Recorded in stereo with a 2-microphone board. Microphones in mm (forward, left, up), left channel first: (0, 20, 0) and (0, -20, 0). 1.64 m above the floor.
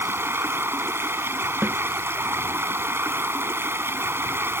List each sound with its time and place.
0.0 s running water: 70° right (ahead or behind)
1.6 s a snare drum: 50° right (ahead or behind)